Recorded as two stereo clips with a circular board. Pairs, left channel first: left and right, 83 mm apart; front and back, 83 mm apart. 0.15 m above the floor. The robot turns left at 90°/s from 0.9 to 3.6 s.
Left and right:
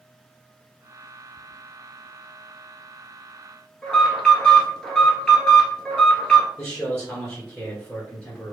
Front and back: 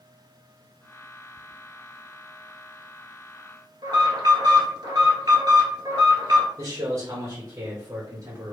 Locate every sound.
3.8 s an alarm: 170° left, 1.4 m
6.6 s a man speaking: 165° left, 2 m